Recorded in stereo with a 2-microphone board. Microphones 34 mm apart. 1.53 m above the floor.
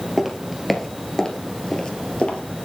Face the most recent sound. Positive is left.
turn(degrees=45)  # may be behind; listen again after turning